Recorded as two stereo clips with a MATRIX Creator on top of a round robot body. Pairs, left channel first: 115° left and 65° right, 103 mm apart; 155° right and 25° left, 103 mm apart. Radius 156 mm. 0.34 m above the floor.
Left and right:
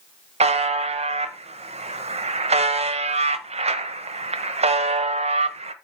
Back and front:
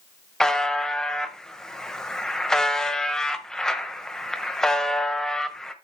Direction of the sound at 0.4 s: 75° right.